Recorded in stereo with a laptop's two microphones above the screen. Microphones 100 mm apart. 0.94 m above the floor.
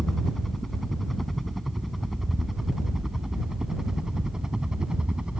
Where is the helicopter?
5° left (ahead or behind); by 5.4 s 10° right (ahead or behind).